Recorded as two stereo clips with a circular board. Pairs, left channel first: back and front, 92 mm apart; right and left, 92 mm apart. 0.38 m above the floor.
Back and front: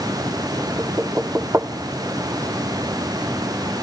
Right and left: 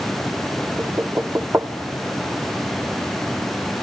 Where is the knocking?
45° left, 0.7 m.